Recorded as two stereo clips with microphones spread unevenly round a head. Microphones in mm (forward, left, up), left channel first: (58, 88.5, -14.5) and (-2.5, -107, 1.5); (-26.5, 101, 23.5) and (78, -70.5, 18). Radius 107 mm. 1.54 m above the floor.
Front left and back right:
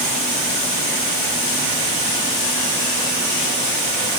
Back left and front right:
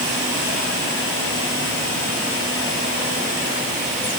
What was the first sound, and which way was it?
Only background noise.